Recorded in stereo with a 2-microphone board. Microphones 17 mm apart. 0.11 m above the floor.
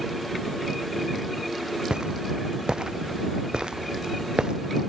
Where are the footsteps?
85° right; by 4.6 s 75° right (ahead or behind).